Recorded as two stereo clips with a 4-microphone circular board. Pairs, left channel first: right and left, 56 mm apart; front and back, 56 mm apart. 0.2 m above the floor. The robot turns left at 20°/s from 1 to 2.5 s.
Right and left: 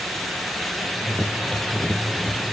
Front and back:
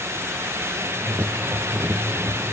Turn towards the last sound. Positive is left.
No sound to turn to.